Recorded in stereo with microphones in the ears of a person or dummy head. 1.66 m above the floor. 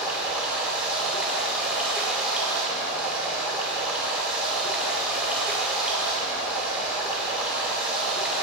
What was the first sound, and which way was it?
Running water, 5° right (ahead or behind).